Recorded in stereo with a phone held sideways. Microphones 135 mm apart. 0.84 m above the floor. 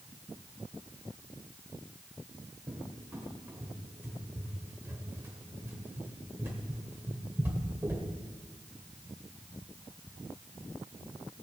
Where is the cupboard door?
15° right (ahead or behind), 2 m.